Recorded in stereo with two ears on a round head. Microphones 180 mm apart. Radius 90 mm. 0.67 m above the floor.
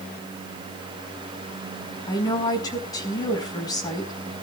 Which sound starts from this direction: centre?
A woman speaking, at 2.1 s.